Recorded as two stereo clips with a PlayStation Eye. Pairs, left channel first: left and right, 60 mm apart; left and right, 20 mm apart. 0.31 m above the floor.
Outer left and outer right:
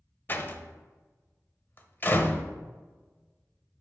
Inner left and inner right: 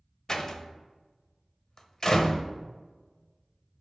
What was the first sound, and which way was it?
A door slam, 35° left (ahead or behind).